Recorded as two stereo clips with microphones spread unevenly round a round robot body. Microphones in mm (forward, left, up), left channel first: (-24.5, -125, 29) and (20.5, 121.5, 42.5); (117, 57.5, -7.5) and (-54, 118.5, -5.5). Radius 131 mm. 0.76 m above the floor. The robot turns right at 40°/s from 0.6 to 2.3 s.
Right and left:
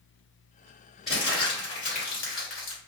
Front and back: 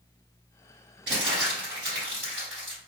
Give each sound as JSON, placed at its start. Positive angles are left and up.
{"t": 1.1, "sound": "crumpling", "azimuth_deg": 170, "distance_m": 1.6}